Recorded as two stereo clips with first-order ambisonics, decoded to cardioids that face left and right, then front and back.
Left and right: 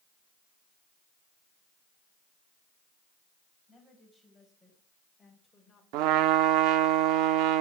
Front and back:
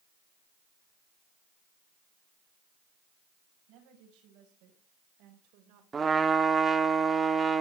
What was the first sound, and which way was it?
A woman speaking, 175° right.